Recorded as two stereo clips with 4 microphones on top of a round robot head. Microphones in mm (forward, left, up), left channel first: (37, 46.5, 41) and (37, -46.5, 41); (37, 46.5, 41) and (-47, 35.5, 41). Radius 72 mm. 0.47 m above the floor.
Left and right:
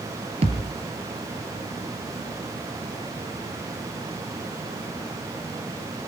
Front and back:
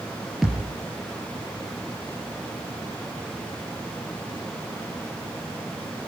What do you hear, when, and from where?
0.4 s a thud: 85° right, 4 m